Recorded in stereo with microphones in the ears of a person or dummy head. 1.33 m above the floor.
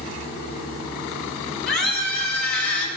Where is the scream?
60° left (ahead or behind), 5 m; by 2.9 s 55° left (ahead or behind), 4.5 m.